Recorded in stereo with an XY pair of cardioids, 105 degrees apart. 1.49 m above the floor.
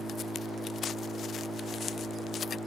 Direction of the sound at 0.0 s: 5° left.